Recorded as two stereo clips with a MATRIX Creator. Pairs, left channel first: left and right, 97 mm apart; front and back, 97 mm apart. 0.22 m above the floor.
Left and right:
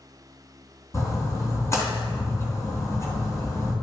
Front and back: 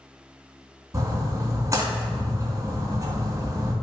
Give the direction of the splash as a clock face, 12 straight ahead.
7 o'clock.